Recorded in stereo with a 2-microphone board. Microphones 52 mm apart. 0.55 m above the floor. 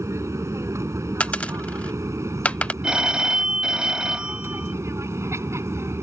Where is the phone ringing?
15° right (ahead or behind).